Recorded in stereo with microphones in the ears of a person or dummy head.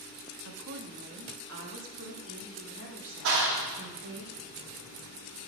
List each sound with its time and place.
0.5 s a woman speaking: 80° right, 1.3 m; by 4.2 s 70° right (ahead or behind), 3.5 m
3.2 s a clap: 80° right, 1.6 m